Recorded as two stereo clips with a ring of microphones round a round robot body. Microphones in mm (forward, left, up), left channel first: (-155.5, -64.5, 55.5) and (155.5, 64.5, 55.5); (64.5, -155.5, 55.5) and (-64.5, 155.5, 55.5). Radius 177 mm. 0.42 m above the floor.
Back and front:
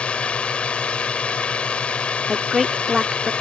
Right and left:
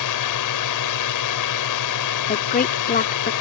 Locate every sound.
0.0 s a drone: 70° right
2.3 s a woman speaking: 65° right